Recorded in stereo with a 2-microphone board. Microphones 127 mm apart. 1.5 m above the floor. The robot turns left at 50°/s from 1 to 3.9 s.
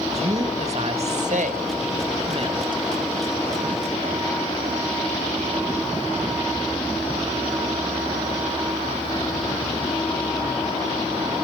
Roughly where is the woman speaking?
Ahead right.